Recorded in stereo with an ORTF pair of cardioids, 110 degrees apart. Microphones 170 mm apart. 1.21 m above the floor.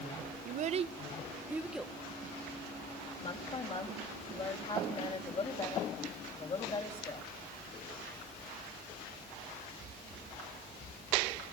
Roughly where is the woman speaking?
Ahead left.